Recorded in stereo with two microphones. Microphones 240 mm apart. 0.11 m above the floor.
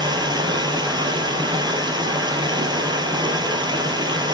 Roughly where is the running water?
Centre.